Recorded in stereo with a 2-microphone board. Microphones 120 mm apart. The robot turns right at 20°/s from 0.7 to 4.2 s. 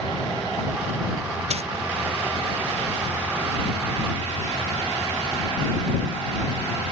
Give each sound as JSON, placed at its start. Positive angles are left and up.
{"t": 1.5, "sound": "a dropped coin", "side_deg": -60}